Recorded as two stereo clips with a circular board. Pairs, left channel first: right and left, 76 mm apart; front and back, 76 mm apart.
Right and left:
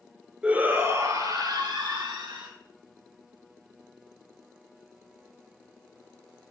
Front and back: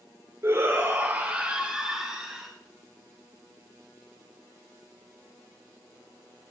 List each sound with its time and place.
0.4 s a shout: 155° left, 1.3 m; by 2.5 s 100° left, 3 m